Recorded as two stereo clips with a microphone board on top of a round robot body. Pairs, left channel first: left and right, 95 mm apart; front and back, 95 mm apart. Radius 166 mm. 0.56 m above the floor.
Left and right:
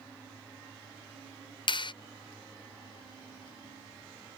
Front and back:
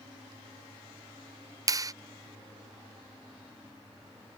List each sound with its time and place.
1.7 s a clap: 125° left